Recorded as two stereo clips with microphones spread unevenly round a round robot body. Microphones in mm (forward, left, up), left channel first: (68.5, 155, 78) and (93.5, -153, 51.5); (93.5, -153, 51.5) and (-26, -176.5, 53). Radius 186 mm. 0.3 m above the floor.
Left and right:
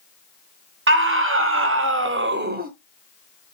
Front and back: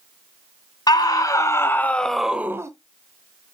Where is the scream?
40° right, 3 m; by 2.7 s 120° right, 1.7 m.